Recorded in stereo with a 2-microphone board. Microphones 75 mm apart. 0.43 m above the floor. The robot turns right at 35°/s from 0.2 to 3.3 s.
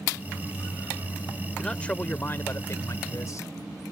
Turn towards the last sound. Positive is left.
turn(degrees=75)